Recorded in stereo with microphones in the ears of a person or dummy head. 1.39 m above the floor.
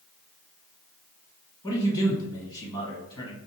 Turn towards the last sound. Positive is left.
turn(degrees=20)  # may be behind; listen again after turning